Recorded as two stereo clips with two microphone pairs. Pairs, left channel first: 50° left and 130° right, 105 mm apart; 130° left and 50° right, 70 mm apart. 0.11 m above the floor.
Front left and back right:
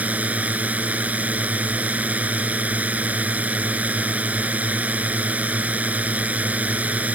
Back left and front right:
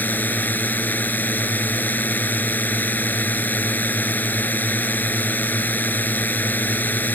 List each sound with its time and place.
0.0 s a drone: 165° left